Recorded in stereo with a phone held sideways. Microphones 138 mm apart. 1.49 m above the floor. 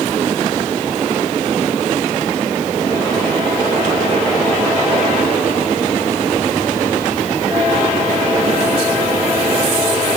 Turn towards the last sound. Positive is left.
No sound to turn to.